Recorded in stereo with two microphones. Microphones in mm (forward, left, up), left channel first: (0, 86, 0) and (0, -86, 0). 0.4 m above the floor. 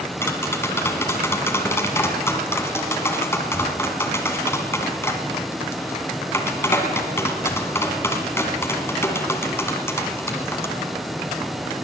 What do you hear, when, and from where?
0.2 s tapping: 15° left (ahead or behind), 1.6 m